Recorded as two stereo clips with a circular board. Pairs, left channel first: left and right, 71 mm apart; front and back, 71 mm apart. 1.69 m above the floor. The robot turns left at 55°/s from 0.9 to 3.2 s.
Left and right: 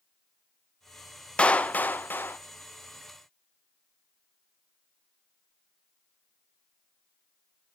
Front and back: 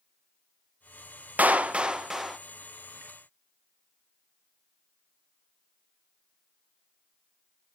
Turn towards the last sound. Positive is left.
turn(degrees=45)